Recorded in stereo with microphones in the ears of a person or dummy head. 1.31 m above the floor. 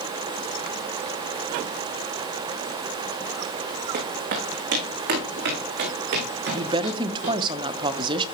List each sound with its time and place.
3.9 s footsteps: 50° right (ahead or behind), 4 m; by 7.4 s 65° right (ahead or behind), 5 m
6.5 s a woman speaking: 30° right (ahead or behind), 0.9 m